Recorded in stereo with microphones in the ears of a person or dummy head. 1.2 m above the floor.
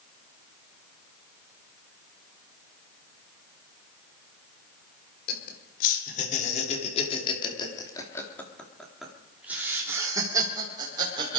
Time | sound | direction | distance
5.3 | laughter | 55° left (ahead or behind) | 3.5 m